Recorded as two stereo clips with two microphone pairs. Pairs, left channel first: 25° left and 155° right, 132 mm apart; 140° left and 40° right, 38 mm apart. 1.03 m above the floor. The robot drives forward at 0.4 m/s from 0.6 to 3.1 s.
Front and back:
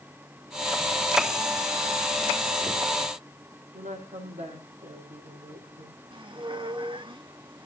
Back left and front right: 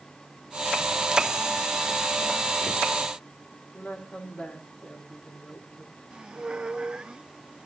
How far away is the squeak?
About 1.0 m.